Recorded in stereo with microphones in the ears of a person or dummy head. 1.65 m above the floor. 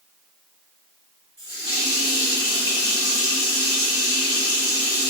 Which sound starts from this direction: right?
A running tap, at 1.4 s.